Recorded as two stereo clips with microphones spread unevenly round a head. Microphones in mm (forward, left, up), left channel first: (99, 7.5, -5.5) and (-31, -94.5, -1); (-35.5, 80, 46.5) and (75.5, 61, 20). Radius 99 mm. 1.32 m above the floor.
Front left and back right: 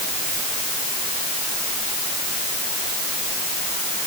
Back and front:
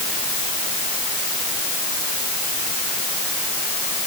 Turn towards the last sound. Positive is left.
No sound to turn to.